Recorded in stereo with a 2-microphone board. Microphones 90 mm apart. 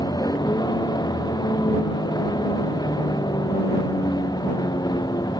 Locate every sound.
0.0 s a vehicle: 50° left (ahead or behind)